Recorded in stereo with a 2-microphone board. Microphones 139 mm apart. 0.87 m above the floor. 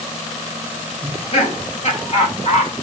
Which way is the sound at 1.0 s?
50° left (ahead or behind).